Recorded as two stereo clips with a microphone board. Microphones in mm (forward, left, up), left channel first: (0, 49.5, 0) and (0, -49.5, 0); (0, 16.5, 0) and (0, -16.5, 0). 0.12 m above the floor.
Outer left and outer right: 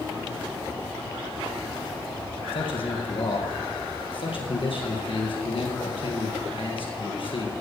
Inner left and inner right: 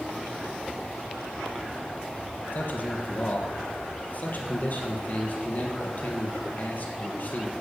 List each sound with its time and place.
2.5 s a man speaking: 60° left (ahead or behind), 3 m